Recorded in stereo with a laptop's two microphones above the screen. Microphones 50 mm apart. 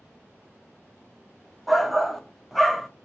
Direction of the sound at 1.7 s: Centre (ahead or behind).